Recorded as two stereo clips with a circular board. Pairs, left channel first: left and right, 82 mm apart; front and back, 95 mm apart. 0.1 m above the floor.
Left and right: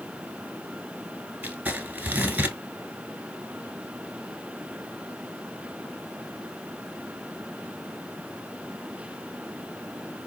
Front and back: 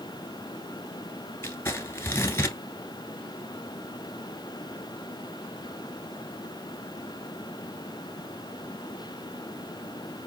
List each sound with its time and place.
1.4 s crumpling: 35° right, 0.9 m